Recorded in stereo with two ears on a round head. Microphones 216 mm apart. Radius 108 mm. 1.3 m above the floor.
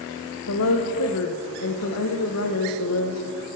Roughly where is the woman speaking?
Left.